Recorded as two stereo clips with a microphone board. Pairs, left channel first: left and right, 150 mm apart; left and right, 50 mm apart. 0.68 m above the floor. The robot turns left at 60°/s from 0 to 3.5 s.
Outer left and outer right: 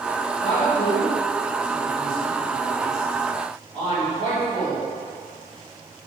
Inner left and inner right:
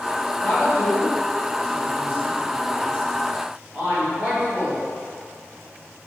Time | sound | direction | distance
0.4 | a woman speaking | 40° left (ahead or behind) | 1.5 m